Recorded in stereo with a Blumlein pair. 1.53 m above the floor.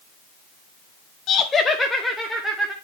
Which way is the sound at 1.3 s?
30° left.